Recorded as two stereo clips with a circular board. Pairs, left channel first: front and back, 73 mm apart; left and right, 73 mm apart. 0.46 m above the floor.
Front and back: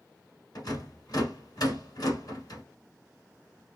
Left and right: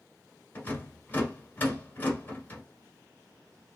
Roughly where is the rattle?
Ahead left.